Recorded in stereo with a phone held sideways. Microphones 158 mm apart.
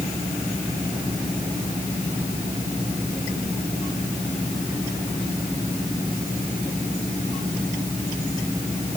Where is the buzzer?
No buzzer in this recording.